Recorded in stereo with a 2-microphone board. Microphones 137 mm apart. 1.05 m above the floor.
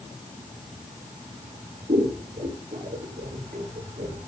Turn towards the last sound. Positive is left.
turn(degrees=-75)  # may be behind; listen again after turning